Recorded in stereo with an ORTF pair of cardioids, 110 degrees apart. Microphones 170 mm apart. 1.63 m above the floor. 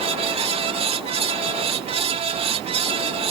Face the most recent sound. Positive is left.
turn(degrees=-40)